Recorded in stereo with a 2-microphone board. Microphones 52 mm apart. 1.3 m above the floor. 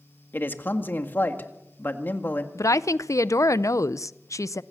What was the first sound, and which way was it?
A man speaking, 40° left (ahead or behind).